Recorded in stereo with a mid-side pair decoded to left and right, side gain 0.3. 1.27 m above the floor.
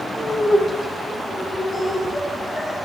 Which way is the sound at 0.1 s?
45° left.